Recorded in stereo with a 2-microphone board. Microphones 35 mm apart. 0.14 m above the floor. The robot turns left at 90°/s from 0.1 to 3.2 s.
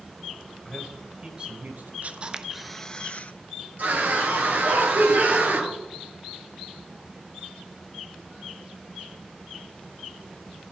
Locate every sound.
0.7 s a man speaking: 30° left (ahead or behind), 2.5 m; by 1.9 s 55° right (ahead or behind), 2.5 m
2.0 s a camera shutter: 125° right, 0.7 m; by 3.3 s 130° left, 0.7 m
3.8 s a scream: 50° right (ahead or behind), 3.5 m